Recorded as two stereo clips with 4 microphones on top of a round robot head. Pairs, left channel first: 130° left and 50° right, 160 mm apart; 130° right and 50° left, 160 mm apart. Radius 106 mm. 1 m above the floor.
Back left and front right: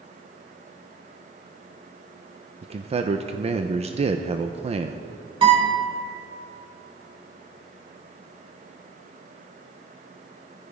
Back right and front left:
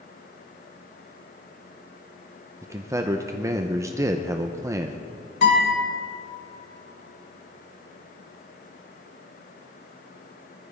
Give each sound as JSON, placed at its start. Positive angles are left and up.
{"t": 2.6, "sound": "a man speaking", "azimuth_deg": -15, "distance_m": 0.8}
{"t": 5.4, "sound": "a guitar", "azimuth_deg": -110, "distance_m": 5.0}